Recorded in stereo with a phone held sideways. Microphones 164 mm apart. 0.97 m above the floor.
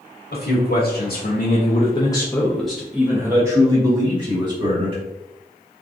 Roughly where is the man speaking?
Left.